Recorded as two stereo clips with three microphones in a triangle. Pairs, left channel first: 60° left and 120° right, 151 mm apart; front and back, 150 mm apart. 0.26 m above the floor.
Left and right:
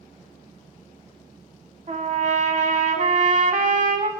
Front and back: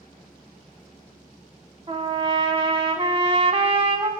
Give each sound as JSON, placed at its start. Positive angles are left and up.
{"t": 1.9, "sound": "a trumpet", "azimuth_deg": -140, "distance_m": 0.8}